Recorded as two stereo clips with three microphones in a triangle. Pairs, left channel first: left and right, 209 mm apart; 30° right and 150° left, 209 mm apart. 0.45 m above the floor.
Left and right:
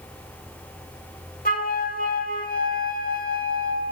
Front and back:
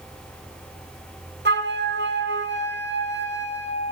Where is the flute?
130° left, 0.7 m.